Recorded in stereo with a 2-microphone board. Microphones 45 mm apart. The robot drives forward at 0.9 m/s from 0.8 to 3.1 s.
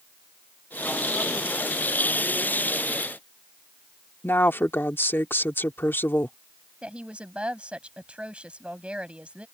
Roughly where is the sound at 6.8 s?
Right.